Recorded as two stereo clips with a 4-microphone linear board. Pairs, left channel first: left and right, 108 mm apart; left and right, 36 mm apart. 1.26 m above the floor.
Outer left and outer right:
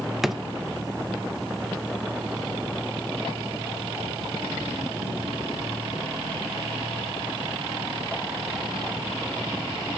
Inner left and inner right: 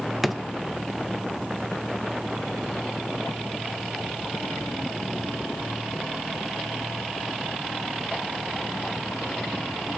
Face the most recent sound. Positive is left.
turn(degrees=-5)  # may be behind; listen again after turning